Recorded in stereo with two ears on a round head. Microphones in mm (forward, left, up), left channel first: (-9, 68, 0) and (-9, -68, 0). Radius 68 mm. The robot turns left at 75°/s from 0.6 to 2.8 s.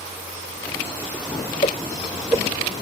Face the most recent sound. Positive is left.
turn(degrees=-50)  # may be behind; listen again after turning